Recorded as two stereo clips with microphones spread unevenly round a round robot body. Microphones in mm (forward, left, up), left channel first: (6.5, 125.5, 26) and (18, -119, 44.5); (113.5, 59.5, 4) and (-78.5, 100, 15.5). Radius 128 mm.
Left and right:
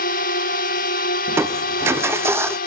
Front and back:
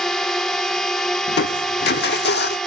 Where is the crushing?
5° right.